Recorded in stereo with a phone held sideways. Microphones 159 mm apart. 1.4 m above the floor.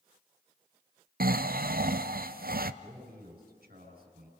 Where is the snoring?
70° right (ahead or behind), 0.5 m.